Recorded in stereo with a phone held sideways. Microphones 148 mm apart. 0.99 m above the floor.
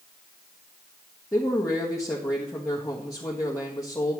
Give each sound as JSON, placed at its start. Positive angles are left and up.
{"t": 1.3, "sound": "a man speaking", "side_deg": 20, "distance_m": 1.3}